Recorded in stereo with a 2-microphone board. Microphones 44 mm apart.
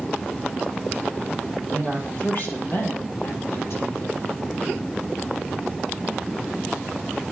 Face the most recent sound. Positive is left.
turn(degrees=65)  # may be behind; listen again after turning